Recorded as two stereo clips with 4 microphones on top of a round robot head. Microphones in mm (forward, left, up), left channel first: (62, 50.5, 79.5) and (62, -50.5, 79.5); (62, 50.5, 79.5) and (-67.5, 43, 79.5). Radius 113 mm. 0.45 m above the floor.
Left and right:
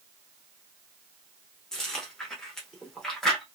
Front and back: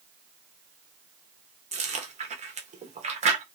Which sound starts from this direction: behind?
Chewing, at 1.7 s.